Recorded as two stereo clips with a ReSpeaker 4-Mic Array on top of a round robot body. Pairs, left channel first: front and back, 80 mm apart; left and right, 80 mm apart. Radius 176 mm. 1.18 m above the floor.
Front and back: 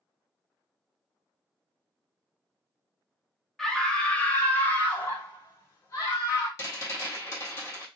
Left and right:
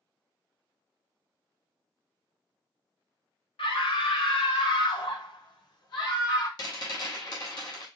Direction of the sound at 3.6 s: 85° left.